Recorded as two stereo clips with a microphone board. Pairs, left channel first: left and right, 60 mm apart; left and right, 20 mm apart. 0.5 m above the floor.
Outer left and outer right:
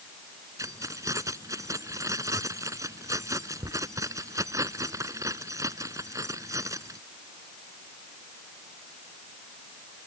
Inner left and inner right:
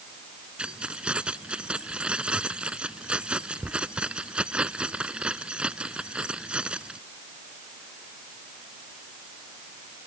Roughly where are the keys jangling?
Right.